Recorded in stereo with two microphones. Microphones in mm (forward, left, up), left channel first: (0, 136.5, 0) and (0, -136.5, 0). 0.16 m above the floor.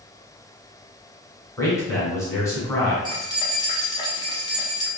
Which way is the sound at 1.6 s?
10° left (ahead or behind).